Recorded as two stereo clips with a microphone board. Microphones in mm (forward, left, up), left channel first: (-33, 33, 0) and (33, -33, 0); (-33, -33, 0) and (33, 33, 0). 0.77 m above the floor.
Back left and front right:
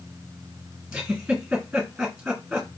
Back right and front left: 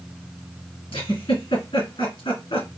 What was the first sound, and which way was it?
A giggle, 125° right.